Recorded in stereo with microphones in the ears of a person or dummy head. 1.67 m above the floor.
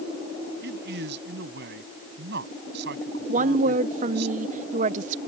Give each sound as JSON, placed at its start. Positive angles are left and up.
{"t": 0.6, "sound": "a man speaking", "side_deg": -55}
{"t": 3.3, "sound": "a woman speaking", "side_deg": -35}